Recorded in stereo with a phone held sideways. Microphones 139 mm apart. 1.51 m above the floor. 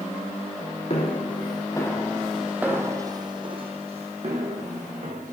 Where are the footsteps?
45° left (ahead or behind), 2.5 m; by 5.3 s 60° right (ahead or behind), 5 m.